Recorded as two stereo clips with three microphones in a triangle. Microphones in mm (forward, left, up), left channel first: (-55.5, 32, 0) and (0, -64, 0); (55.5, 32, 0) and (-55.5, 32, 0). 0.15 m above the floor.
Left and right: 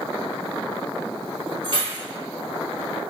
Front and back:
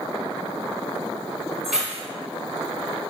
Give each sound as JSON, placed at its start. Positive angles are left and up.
{"t": 1.6, "sound": "keys jangling", "azimuth_deg": -95, "distance_m": 1.9}